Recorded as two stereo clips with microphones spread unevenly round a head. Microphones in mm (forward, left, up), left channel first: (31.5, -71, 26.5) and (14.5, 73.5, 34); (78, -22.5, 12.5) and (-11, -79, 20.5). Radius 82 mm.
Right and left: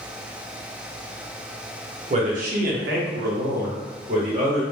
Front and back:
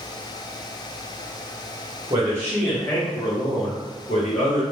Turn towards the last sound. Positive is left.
turn(degrees=50)